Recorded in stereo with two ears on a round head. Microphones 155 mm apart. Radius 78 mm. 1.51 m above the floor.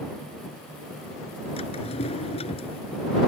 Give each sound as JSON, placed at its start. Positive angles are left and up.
{"t": 1.6, "sound": "a drawer", "side_deg": 40}